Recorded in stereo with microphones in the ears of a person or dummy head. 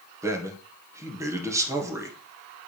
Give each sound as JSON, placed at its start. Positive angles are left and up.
{"t": 0.2, "sound": "a man speaking", "side_deg": -10, "distance_m": 1.6}